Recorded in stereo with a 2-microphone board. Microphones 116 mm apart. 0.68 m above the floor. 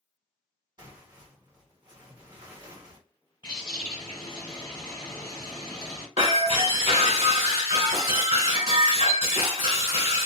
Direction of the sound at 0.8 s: 35° right (ahead or behind).